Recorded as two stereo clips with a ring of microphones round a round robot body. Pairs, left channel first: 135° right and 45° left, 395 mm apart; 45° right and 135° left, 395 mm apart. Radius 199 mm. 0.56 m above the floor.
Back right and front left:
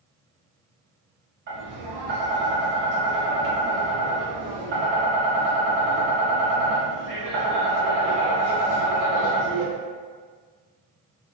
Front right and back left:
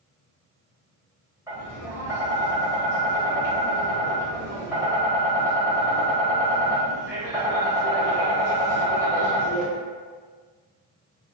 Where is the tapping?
60° left, 1.0 m.